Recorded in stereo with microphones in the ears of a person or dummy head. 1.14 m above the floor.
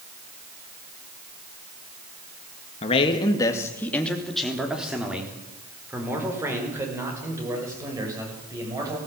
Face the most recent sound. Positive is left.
turn(degrees=-20)  # may be behind; listen again after turning